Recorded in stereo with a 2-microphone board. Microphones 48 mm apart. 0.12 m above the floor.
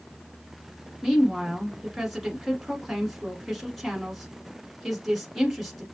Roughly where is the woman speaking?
Centre.